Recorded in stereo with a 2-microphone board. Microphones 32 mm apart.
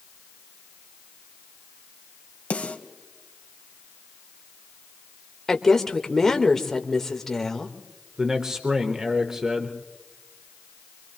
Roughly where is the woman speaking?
Centre.